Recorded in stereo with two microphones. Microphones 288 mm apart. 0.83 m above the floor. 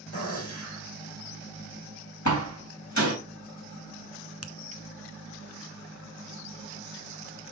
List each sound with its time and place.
0.1 s a gunshot: 55° left (ahead or behind), 3.5 m
2.2 s a door slam: 75° left (ahead or behind), 3 m
4.4 s a finger snap: 55° left (ahead or behind), 0.5 m